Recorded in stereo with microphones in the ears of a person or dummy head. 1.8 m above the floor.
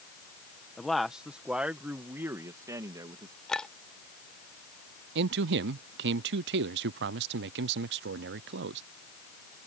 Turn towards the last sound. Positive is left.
turn(degrees=-70)  # may be behind; listen again after turning